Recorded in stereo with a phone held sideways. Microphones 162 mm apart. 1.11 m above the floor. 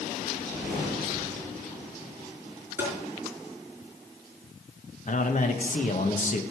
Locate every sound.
0.3 s a whoosh: centre (ahead or behind), 6.5 m
2.8 s tapping: 15° right (ahead or behind), 4.5 m
5.1 s a man speaking: 50° left (ahead or behind), 1.3 m